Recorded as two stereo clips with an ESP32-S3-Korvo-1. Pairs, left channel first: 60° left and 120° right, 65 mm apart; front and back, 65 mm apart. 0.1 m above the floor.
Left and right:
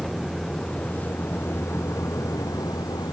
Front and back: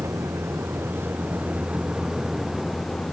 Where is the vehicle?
140° left; by 3.1 s 80° left.